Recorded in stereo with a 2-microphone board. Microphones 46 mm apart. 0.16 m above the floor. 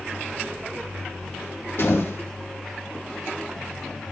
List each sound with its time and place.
1.8 s a door slam: 55° left (ahead or behind), 5.5 m